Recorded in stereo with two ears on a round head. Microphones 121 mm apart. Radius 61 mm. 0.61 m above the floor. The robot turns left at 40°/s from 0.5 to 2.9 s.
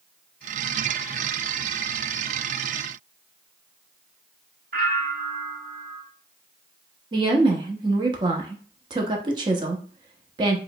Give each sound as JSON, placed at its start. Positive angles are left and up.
{"t": 4.7, "sound": "a bell", "side_deg": -70, "distance_m": 2.0}
{"t": 7.1, "sound": "a woman speaking", "side_deg": -35, "distance_m": 0.9}